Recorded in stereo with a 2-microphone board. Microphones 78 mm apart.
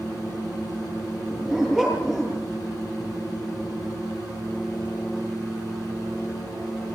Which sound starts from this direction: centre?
A dog barking, at 1.3 s.